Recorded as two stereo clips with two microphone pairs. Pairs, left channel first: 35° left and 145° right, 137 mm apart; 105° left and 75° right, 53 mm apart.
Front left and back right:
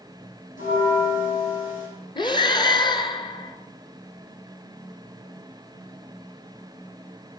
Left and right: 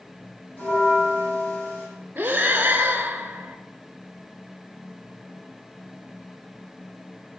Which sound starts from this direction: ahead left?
A bell, at 0.6 s.